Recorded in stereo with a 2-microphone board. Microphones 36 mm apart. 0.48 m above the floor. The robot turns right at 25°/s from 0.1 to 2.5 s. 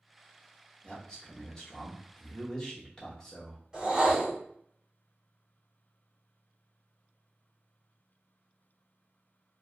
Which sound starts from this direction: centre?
A man speaking, at 0.8 s.